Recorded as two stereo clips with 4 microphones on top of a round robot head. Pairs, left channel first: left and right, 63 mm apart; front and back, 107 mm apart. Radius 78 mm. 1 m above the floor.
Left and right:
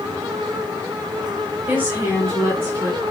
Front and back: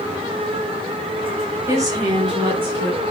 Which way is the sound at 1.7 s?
135° right.